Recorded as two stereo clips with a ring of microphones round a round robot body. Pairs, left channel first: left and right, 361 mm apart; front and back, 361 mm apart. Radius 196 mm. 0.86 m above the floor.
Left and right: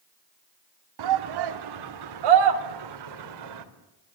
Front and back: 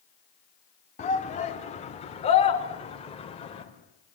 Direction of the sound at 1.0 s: 75° right.